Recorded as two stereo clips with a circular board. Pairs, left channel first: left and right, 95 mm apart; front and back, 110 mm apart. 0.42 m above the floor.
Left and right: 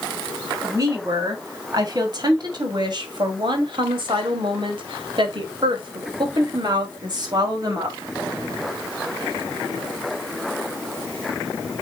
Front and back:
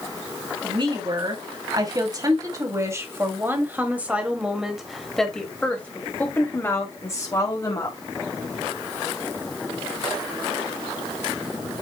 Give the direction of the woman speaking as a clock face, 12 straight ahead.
5 o'clock.